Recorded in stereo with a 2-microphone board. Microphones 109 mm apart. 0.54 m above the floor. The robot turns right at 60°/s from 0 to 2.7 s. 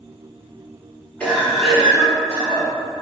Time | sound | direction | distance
1.2 | a cough | 155° left | 1.2 m